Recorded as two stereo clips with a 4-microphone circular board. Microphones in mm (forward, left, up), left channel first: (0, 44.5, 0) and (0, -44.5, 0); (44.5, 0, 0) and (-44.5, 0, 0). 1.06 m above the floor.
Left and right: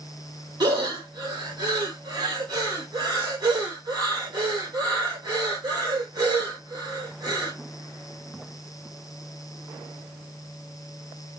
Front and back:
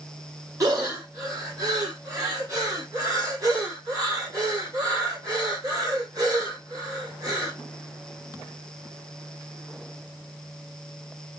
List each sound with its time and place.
0.6 s breathing: 130° right, 1.1 m